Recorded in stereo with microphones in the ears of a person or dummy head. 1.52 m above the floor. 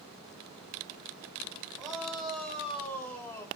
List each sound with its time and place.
1.8 s a shout: 5° right (ahead or behind), 5 m; by 3.5 s 15° left (ahead or behind), 3 m